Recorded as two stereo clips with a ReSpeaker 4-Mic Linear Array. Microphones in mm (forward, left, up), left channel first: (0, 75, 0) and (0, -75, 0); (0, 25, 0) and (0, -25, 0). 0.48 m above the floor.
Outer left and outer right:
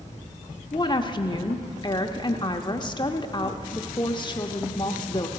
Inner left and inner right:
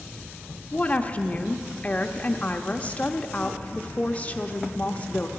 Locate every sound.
0.7 s a woman speaking: 30° left (ahead or behind), 0.8 m